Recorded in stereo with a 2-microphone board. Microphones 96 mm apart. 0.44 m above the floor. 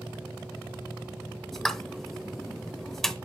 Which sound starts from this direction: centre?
A pop, at 1.5 s.